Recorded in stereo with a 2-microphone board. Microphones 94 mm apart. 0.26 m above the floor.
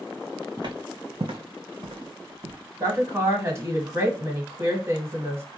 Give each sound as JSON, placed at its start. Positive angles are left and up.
{"t": 0.6, "sound": "footsteps", "side_deg": -50, "distance_m": 0.8}
{"t": 2.8, "sound": "a woman speaking", "side_deg": -30, "distance_m": 1.4}